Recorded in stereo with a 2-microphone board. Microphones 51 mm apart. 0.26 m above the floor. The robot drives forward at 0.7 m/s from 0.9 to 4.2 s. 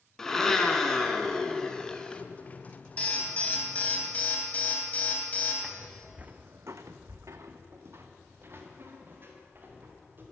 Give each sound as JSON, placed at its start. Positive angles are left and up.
{"t": 0.2, "sound": "a blender", "side_deg": 10, "distance_m": 1.4}
{"t": 3.0, "sound": "an alarm", "side_deg": 25, "distance_m": 2.5}
{"t": 5.6, "sound": "footsteps", "side_deg": -5, "distance_m": 1.1}